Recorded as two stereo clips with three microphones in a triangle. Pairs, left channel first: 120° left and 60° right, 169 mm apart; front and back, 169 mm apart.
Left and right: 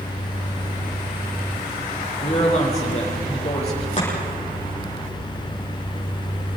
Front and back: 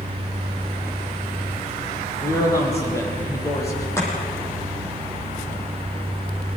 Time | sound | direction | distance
2.2 | a man speaking | 70° left | 7.5 m
4.0 | chopping | 75° left | 9 m